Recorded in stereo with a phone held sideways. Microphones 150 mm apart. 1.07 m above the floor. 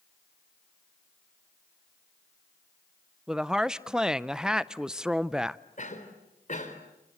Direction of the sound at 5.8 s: 55° left (ahead or behind).